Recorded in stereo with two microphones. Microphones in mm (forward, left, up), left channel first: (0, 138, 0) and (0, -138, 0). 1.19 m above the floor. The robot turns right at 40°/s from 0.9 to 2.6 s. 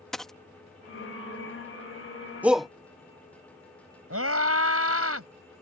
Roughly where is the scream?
Right.